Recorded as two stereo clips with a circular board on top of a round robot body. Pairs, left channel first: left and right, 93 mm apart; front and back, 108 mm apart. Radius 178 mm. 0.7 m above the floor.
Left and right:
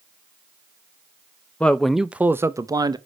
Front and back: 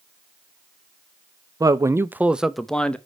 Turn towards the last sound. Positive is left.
turn(degrees=-75)